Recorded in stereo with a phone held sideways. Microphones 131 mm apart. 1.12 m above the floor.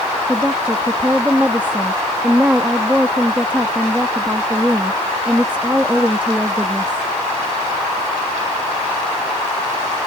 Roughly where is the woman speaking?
Centre.